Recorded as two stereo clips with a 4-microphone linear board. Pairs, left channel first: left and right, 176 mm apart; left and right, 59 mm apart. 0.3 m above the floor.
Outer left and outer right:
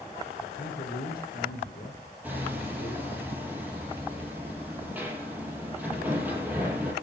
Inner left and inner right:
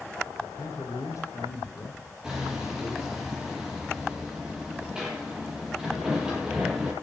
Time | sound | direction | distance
0.4 | a man speaking | 60° left (ahead or behind) | 5.5 m
2.2 | hammering | 10° right (ahead or behind) | 8.5 m